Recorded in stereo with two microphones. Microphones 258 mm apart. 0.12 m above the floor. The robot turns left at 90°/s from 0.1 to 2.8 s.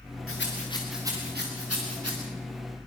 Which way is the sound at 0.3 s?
60° left (ahead or behind).